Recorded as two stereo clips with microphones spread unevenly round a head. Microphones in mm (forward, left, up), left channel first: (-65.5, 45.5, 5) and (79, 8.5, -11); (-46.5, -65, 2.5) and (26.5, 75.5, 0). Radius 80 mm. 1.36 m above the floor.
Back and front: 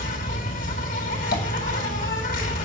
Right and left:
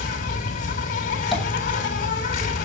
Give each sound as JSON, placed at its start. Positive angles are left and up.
{"t": 0.0, "sound": "an insect", "azimuth_deg": -155, "distance_m": 3.5}
{"t": 1.3, "sound": "tapping", "azimuth_deg": 155, "distance_m": 8.0}